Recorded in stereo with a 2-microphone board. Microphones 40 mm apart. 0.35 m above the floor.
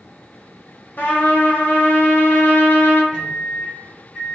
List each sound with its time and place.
1.0 s a trumpet: 55° left (ahead or behind), 0.7 m
3.1 s a microwave: 40° left (ahead or behind), 1.5 m